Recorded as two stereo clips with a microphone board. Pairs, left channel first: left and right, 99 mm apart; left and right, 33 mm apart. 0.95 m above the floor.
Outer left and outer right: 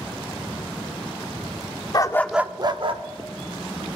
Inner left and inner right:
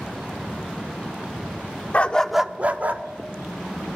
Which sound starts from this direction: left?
A dog barking, at 1.9 s.